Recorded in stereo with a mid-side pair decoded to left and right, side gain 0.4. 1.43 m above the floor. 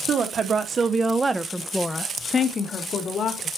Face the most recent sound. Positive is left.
turn(degrees=65)